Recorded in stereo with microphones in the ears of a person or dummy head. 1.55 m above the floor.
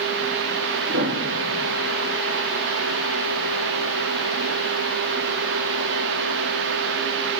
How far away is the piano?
About 3 m.